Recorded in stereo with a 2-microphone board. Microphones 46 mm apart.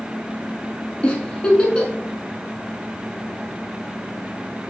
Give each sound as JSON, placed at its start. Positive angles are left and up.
{"t": 1.0, "sound": "a giggle", "side_deg": 20, "distance_m": 0.7}